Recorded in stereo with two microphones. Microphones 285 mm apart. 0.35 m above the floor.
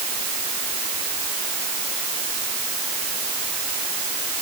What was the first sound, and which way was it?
Only background noise.